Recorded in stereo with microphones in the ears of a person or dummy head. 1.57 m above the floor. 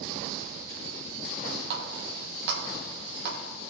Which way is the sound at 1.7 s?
60° right (ahead or behind).